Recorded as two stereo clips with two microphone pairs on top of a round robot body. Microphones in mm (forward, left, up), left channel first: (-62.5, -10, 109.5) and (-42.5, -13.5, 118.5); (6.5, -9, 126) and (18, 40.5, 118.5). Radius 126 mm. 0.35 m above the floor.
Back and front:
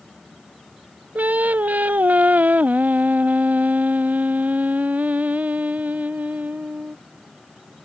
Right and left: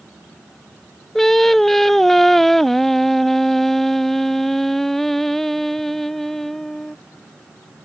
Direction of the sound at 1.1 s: 20° right.